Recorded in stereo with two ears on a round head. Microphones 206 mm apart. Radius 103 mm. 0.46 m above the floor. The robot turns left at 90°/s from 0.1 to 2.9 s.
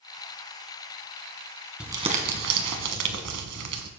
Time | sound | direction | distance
1.8 | crumpling | 5° right | 1.8 m